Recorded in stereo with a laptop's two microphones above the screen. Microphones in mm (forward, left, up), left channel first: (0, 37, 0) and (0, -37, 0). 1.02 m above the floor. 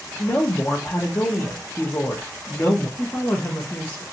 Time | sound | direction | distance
0.2 | a woman speaking | 35° left (ahead or behind) | 0.8 m
3.0 | a woman speaking | 25° left (ahead or behind) | 0.7 m